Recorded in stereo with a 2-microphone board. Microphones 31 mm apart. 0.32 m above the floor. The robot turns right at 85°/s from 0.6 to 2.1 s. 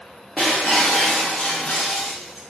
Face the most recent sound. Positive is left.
turn(degrees=165)